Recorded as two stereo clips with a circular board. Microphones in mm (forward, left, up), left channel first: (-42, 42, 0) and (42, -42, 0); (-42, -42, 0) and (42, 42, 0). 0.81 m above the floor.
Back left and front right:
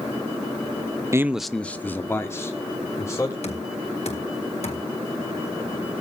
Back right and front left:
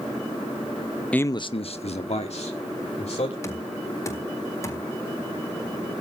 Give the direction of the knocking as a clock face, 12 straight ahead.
7 o'clock.